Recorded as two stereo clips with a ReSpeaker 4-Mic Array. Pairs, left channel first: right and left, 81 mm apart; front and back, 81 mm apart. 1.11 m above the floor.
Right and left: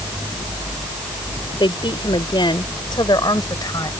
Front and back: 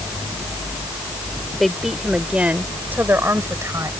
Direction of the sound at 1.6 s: 90° right.